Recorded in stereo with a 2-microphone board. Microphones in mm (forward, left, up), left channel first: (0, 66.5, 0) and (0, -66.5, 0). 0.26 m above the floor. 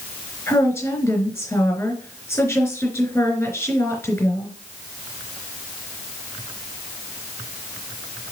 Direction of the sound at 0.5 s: 15° left (ahead or behind).